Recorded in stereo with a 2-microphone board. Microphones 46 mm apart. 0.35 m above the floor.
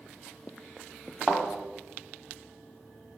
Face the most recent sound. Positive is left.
turn(degrees=10)  # may be behind; listen again after turning